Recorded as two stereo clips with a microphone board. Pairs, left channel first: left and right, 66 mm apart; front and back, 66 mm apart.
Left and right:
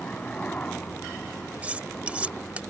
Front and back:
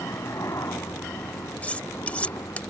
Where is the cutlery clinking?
45° right.